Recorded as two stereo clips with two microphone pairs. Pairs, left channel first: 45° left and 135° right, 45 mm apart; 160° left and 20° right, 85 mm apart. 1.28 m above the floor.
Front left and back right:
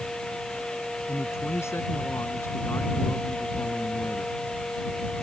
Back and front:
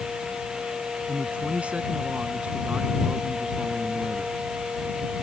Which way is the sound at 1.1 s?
55° left.